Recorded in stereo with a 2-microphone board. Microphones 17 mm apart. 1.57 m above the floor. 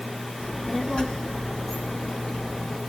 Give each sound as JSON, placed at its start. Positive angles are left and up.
{"t": 0.4, "sound": "a child speaking", "side_deg": 40, "distance_m": 2.5}